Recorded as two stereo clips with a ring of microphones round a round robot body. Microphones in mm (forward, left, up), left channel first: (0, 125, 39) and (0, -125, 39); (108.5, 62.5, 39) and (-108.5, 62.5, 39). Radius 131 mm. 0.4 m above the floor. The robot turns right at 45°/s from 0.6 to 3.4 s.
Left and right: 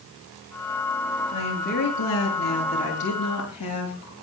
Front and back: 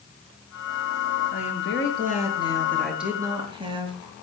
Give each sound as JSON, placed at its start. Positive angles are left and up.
{"t": 1.3, "sound": "a woman speaking", "azimuth_deg": 20, "distance_m": 7.0}